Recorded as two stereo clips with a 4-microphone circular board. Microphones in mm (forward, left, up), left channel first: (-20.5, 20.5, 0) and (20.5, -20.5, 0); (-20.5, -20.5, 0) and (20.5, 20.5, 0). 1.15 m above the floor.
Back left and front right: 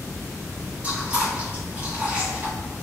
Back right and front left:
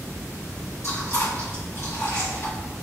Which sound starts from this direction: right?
Chewing, at 0.8 s.